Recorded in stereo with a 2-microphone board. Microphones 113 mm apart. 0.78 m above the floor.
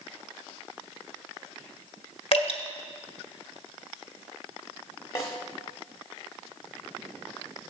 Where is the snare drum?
30° left (ahead or behind), 1.5 m.